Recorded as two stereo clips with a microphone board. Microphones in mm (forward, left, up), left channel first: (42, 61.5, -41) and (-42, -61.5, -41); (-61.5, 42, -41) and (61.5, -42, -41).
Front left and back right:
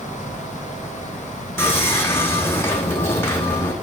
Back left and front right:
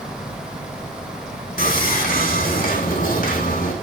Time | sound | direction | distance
1.6 | sawing | 130° left | 3.5 m